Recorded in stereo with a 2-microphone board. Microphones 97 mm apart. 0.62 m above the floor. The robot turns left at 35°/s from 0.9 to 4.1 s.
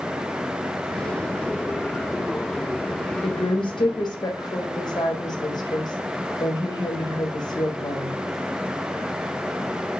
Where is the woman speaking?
75° left (ahead or behind), 2 m; by 8.1 s 50° left (ahead or behind), 2 m.